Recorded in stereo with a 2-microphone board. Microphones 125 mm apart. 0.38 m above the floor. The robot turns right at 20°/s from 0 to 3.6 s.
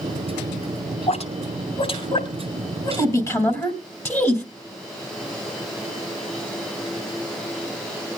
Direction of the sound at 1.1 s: 60° left (ahead or behind).